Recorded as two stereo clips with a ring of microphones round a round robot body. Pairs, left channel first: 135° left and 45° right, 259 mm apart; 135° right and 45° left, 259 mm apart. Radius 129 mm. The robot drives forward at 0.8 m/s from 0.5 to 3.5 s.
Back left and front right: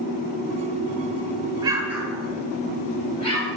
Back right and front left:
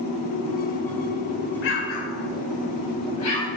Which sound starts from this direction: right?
An explosion, at 1.6 s.